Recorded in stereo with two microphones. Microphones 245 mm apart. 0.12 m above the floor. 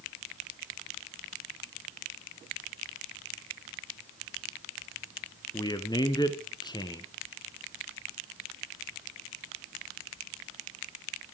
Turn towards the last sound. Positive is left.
turn(degrees=15)  # may be behind; listen again after turning